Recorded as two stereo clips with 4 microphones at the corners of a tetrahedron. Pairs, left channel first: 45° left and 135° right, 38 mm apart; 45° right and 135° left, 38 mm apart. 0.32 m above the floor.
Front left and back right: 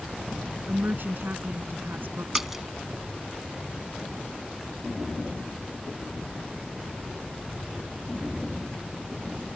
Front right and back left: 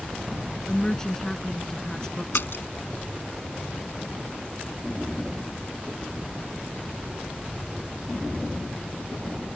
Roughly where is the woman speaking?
Behind right.